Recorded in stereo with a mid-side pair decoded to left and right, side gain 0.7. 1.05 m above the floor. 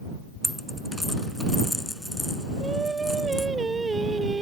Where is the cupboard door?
I don't hear a cupboard door.